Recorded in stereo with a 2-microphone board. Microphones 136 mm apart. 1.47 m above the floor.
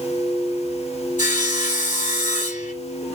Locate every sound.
1.2 s sawing: 70° left (ahead or behind), 2.5 m